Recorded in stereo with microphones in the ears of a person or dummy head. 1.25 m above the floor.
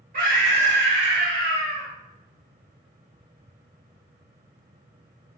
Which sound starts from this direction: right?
A scream, at 0.1 s.